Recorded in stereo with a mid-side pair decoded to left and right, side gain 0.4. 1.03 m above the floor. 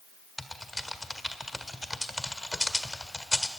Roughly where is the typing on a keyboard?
Ahead.